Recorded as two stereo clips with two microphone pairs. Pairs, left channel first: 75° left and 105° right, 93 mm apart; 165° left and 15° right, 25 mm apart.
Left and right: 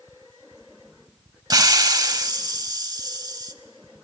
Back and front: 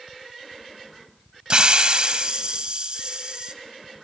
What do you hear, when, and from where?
1.5 s a hiss: 65° right, 0.7 m